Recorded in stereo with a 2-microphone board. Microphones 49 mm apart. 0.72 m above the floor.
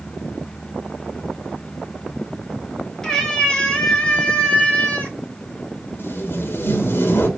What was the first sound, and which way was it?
A cat meowing, 10° left (ahead or behind).